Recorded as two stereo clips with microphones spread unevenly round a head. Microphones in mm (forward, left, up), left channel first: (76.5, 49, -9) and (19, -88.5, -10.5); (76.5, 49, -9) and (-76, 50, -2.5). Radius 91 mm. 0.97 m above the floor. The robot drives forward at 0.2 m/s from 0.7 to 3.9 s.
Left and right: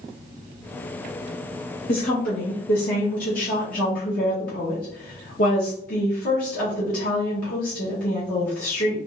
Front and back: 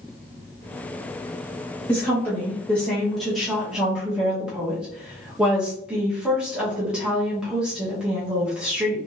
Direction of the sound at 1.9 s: 70° left.